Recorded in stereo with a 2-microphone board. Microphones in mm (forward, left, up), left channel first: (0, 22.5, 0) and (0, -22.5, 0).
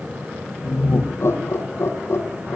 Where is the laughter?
65° left (ahead or behind), 5.5 m.